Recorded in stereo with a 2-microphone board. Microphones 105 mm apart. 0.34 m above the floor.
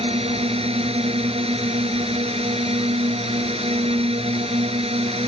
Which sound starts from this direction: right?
A drone, at 0.0 s.